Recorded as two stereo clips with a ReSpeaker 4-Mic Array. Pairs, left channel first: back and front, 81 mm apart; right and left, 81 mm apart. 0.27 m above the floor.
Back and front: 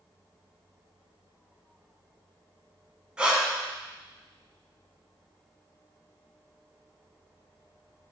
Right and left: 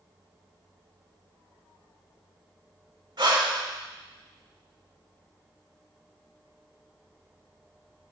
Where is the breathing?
75° left, 0.7 m.